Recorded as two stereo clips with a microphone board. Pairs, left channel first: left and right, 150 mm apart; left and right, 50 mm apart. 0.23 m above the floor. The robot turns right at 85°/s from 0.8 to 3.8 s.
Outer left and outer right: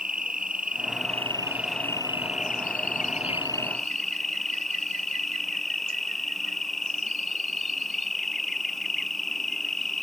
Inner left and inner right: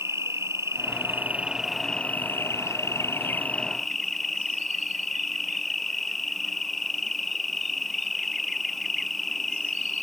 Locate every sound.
0.0 s an insect: 75° right; by 10.0 s straight behind